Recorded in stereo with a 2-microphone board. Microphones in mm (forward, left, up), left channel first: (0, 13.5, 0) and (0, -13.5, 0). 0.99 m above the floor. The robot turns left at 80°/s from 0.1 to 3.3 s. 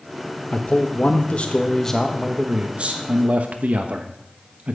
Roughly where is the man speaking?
Behind left.